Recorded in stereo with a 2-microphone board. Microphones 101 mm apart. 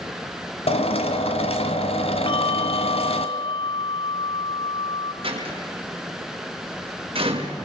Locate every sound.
0.7 s a drill: 85° left, 1.9 m
2.3 s a bell: 55° left (ahead or behind), 0.8 m
5.2 s a door slam: 65° right (ahead or behind), 5.5 m